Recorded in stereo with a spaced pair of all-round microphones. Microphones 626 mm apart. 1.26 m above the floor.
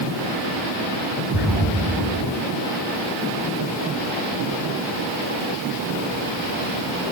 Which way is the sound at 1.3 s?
Centre (ahead or behind).